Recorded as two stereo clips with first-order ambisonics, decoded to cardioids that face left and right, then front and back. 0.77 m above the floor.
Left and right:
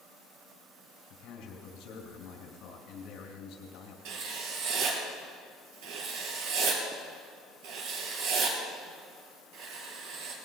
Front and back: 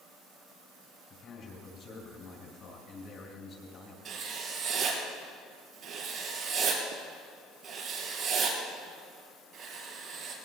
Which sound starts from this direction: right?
Writing, at 4.0 s.